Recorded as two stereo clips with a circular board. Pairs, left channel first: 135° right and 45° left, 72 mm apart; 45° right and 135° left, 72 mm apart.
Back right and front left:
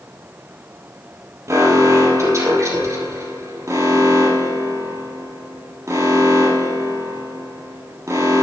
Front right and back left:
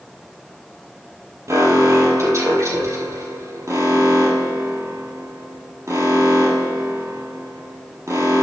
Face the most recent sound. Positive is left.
turn(degrees=90)